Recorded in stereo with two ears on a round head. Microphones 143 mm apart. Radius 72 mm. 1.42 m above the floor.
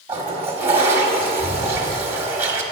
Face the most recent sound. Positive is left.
turn(degrees=-15)  # may be behind; listen again after turning